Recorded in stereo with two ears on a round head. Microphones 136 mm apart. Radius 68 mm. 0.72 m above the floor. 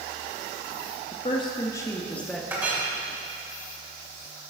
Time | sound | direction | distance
1.1 | a woman speaking | 40° left (ahead or behind) | 1.1 m
2.5 | a clink | 15° right (ahead or behind) | 2.5 m